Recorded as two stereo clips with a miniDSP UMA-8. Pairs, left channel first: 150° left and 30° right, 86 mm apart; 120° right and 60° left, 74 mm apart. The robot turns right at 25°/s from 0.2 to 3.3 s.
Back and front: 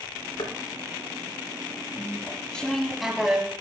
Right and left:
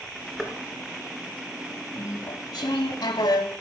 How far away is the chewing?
About 1.0 m.